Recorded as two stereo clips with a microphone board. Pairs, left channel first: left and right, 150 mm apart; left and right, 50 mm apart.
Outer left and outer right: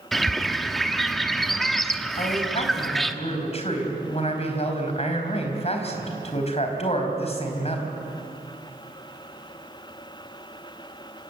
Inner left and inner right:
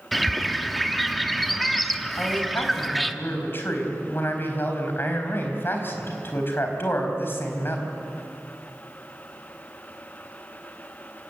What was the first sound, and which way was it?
A bird, centre (ahead or behind).